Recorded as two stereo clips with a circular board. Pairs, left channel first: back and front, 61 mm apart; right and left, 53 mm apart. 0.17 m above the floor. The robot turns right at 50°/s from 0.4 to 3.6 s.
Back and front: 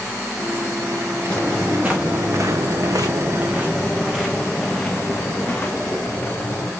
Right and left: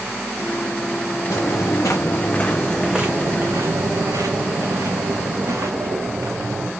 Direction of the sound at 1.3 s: 110° right.